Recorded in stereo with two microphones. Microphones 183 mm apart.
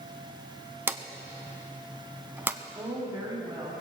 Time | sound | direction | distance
0.9 | a drawer | 10° right (ahead or behind) | 0.7 m
2.8 | a woman speaking | 20° right (ahead or behind) | 2.5 m